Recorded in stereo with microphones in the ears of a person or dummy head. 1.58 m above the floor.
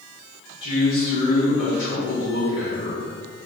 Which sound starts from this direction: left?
A man speaking, at 0.6 s.